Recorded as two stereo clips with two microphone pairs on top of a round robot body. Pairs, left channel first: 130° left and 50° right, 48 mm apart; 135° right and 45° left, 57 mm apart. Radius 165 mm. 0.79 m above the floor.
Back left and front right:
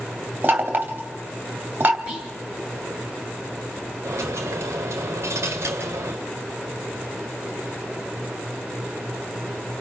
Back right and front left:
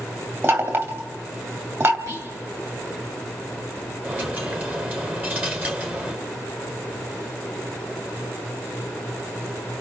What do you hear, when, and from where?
0.4 s knocking: 5° left, 2.5 m
2.1 s whispering: 25° left, 7.5 m
4.0 s a dropped coin: 15° right, 1.2 m